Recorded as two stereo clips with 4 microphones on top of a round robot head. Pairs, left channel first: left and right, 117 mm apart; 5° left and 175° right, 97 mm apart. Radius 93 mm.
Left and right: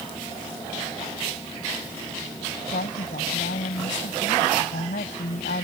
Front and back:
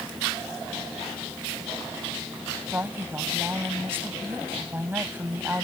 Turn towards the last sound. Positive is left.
turn(degrees=120)